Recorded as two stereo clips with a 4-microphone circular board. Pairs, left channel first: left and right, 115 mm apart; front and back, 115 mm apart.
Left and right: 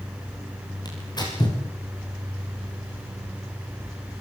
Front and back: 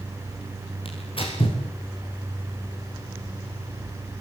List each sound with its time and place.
0.8 s tearing paper: 35° left, 8.5 m